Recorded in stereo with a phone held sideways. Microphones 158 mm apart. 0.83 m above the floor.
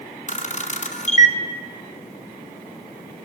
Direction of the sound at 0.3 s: 50° left (ahead or behind).